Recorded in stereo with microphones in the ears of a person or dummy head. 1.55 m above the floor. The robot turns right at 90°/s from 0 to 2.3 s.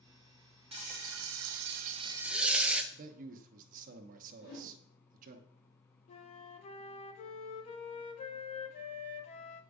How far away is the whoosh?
About 2 m.